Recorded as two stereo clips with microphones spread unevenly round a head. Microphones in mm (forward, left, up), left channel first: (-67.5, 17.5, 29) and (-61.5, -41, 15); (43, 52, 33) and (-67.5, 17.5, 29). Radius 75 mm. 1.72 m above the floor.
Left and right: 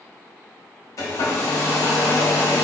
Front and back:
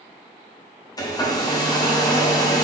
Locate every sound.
1.0 s a hair dryer: 70° left, 0.7 m